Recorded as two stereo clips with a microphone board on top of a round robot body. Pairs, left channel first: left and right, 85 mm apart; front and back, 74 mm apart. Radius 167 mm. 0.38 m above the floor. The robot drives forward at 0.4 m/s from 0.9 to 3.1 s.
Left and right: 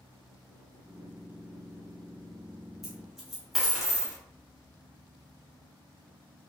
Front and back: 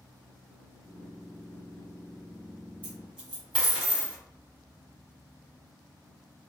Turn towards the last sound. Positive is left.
turn(degrees=-175)